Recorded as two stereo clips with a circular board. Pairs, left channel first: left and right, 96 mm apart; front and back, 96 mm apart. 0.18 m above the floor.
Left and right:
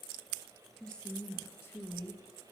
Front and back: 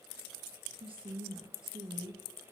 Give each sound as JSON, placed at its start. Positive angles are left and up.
{"t": 0.8, "sound": "a woman speaking", "azimuth_deg": 175, "distance_m": 3.0}